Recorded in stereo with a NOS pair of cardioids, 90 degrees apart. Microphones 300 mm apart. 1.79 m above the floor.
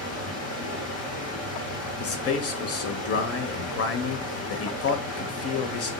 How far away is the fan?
About 1.3 m.